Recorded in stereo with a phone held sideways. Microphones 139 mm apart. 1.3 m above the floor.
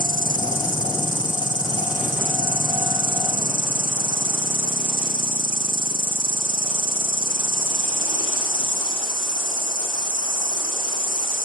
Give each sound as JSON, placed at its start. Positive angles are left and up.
{"t": 0.0, "sound": "an insect", "side_deg": 65, "distance_m": 3.5}